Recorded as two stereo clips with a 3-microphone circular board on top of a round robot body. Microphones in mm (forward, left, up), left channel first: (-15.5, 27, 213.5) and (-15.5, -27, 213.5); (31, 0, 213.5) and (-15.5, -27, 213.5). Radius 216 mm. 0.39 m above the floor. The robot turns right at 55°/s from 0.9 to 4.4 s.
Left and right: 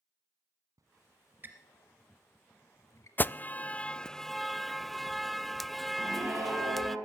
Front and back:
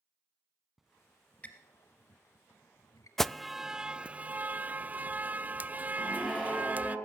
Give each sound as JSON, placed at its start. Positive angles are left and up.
{"t": 0.8, "sound": "a squeak", "azimuth_deg": -65, "distance_m": 1.0}
{"t": 3.2, "sound": "an alarm", "azimuth_deg": 110, "distance_m": 0.6}
{"t": 6.0, "sound": "a scream", "azimuth_deg": -55, "distance_m": 8.5}